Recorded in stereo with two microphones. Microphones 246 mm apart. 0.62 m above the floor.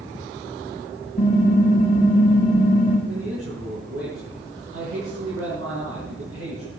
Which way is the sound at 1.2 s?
35° left (ahead or behind).